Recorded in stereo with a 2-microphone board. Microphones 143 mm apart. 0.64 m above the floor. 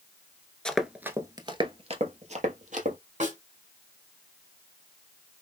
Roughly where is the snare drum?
Right.